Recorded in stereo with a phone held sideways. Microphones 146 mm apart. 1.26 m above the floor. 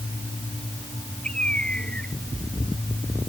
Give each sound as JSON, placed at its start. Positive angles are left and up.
{"t": 1.2, "sound": "a bird", "side_deg": 5}